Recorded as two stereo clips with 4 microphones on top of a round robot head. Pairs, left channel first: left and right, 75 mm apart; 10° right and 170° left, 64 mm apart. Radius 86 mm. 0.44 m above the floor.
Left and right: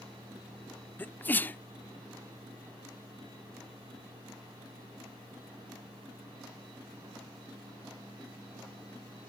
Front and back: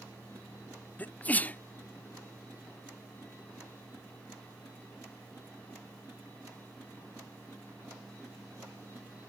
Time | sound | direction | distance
1.0 | a sneeze | 40° left | ?